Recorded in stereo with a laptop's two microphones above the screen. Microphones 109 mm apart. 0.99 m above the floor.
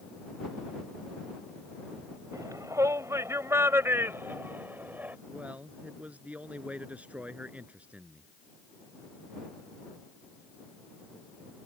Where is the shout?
30° right (ahead or behind); by 5.2 s 15° right (ahead or behind).